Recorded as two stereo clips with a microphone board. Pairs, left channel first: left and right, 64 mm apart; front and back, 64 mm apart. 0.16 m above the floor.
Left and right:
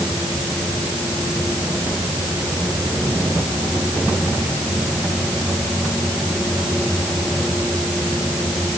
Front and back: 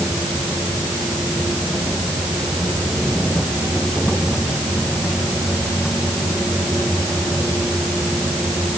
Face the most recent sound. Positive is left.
No sound to turn to.